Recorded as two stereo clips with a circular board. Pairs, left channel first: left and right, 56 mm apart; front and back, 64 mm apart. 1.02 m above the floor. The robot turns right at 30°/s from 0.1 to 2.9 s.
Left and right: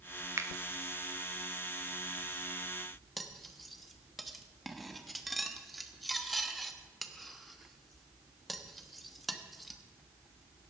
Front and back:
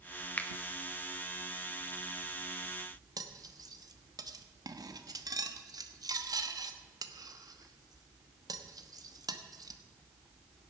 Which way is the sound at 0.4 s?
60° right.